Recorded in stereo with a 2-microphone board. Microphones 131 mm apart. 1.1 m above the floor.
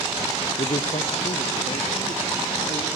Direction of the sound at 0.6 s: 50° left (ahead or behind).